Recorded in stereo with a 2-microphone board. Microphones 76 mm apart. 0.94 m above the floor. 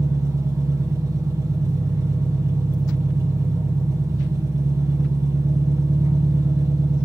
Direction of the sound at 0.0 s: 45° right (ahead or behind).